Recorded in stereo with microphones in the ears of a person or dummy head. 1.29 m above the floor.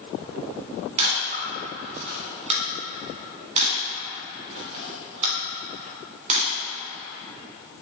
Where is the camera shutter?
40° right (ahead or behind), 1.3 m.